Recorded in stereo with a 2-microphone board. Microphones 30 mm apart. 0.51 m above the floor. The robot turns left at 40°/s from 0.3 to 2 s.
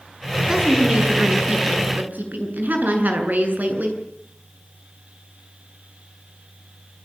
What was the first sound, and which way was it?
A woman speaking, 25° right.